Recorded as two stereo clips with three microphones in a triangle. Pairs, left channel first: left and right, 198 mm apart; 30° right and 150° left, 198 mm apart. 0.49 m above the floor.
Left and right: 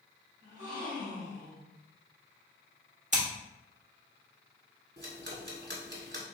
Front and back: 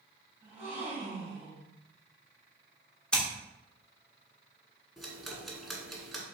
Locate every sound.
0.4 s a gasp: 130° right, 1.9 m
3.1 s scissors: 115° right, 1.2 m
5.0 s ticking: 120° right, 1.3 m